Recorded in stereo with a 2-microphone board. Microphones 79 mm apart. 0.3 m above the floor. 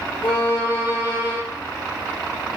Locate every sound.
0.2 s a violin: 85° left, 1.9 m